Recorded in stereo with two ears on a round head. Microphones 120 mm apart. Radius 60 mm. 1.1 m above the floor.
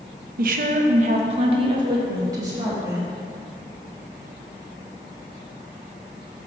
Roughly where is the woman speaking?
Right.